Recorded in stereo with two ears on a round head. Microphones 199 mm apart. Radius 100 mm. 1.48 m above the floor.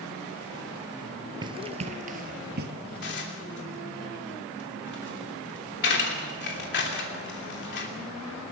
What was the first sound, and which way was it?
Running footsteps, 20° right (ahead or behind).